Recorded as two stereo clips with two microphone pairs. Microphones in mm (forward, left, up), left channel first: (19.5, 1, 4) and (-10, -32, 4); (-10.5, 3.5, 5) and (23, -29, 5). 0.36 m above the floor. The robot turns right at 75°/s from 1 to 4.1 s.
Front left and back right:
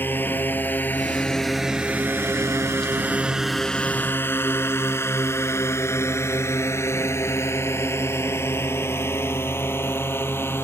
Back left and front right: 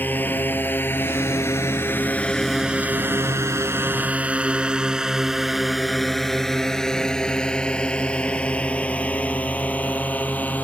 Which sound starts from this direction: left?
A drone, at 0.0 s.